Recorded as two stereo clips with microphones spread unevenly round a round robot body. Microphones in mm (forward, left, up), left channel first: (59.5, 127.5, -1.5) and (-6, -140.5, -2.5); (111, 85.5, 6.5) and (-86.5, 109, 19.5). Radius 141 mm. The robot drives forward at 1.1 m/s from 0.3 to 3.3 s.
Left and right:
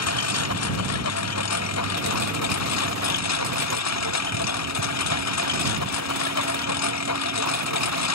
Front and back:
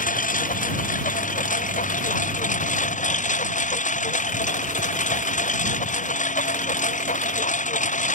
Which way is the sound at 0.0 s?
40° left.